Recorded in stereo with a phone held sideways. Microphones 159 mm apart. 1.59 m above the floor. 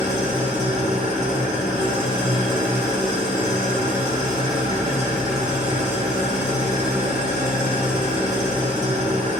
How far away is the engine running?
About 3 m.